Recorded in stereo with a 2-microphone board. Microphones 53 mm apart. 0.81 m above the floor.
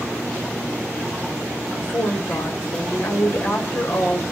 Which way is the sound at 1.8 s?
55° left (ahead or behind).